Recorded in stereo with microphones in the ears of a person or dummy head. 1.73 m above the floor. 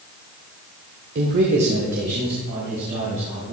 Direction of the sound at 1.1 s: 50° right (ahead or behind).